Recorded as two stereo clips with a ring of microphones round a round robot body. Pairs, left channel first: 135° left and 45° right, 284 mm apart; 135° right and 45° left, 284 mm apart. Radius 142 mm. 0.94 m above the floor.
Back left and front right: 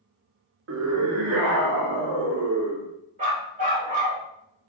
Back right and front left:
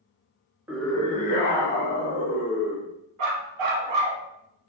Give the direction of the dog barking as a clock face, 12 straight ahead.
11 o'clock.